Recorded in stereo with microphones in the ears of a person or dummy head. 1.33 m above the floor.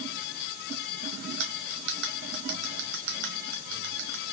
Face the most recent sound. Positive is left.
turn(degrees=-70)  # may be behind; listen again after turning